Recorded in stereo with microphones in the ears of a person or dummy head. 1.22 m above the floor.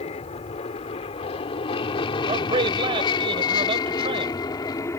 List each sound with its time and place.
0.0 s an aircraft: 35° left (ahead or behind); by 5.0 s 15° left (ahead or behind)
2.3 s a man speaking: 30° right (ahead or behind)